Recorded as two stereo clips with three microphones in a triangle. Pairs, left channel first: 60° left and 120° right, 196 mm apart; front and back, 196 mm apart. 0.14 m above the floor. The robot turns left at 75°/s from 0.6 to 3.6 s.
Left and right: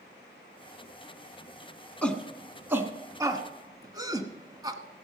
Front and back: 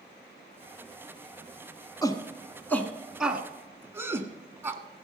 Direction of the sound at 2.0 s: 10° right.